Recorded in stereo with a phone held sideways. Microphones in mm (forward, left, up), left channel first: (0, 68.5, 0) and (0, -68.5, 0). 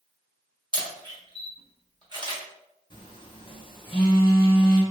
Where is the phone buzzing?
35° left (ahead or behind), 0.7 m.